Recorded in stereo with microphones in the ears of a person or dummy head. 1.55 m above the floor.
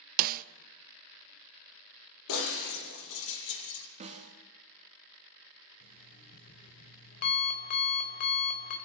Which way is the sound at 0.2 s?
50° right (ahead or behind).